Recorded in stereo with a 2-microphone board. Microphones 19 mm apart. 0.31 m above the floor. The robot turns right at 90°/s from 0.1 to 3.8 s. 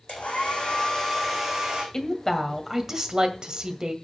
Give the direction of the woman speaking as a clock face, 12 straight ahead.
8 o'clock.